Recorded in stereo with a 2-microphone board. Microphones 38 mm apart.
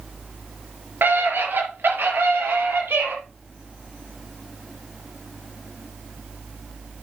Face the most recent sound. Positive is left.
turn(degrees=-75)  # may be behind; listen again after turning